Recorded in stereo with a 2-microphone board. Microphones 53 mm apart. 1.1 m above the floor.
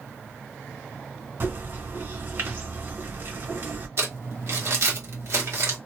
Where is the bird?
50° right (ahead or behind), 1.7 m.